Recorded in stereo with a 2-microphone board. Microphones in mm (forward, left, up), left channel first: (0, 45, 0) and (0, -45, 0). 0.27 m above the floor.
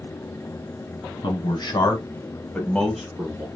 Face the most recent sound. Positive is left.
turn(degrees=-20)  # may be behind; listen again after turning